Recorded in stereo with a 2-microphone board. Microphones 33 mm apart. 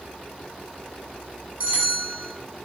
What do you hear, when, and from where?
1.6 s a bell: 60° right (ahead or behind), 2.5 m